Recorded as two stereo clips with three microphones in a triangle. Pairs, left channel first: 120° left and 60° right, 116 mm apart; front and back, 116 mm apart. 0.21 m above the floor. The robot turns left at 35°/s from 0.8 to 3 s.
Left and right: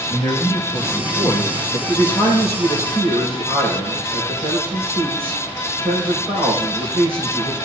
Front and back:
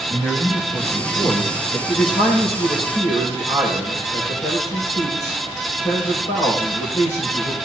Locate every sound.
0.1 s a man speaking: 90° left, 3 m; by 1.8 s 55° left, 3 m
1.9 s a man speaking: 50° left, 5.5 m; by 7.5 s 10° left, 5.5 m